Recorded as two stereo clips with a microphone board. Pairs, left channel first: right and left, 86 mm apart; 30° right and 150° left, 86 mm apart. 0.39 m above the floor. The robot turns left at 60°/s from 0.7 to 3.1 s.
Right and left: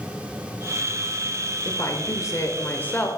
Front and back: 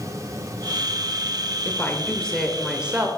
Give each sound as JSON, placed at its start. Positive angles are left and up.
{"t": 1.6, "sound": "a woman speaking", "azimuth_deg": -70, "distance_m": 1.1}